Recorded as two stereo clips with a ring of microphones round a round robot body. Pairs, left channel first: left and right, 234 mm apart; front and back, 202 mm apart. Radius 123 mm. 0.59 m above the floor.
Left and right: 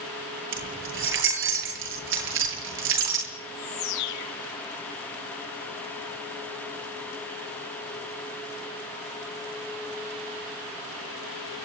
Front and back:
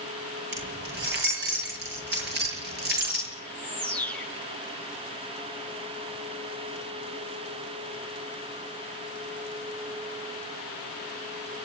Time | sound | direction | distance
0.5 | keys jangling | 130° right | 9 m
3.4 | a bird | 85° left | 7 m